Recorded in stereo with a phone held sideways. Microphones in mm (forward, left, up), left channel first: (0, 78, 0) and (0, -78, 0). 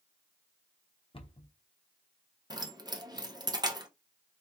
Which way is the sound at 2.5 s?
25° right (ahead or behind).